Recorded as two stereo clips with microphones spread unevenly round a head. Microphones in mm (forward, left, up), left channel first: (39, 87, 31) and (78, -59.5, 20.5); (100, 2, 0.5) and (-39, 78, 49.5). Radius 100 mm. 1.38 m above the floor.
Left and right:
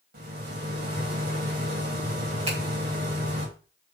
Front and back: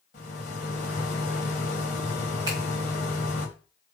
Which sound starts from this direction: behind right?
A finger snap, at 2.5 s.